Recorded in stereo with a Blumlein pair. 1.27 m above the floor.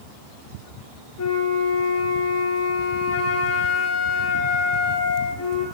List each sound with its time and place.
1.2 s a flute: 50° left, 1.1 m